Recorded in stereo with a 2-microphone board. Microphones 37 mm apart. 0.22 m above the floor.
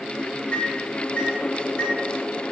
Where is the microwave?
30° left (ahead or behind), 1.3 m.